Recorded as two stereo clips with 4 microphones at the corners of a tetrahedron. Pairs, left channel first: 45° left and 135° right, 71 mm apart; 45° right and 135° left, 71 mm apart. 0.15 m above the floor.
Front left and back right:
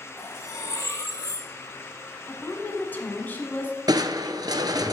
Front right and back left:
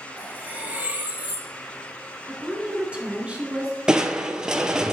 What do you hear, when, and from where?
0.2 s cutlery clinking: 70° left, 1.3 m
2.3 s a woman speaking: 80° left, 1.2 m
3.9 s crushing: 145° right, 0.5 m